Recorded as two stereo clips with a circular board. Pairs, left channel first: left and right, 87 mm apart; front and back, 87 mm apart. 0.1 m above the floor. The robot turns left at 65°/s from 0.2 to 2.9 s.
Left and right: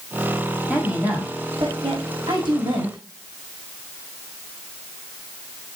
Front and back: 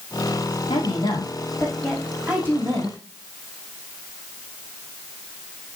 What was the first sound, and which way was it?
A woman speaking, 5° left.